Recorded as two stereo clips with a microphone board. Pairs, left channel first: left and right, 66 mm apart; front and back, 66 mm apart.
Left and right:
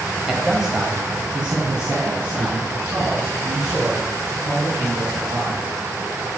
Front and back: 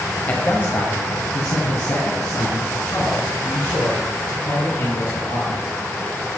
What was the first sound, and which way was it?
A man speaking, 10° right.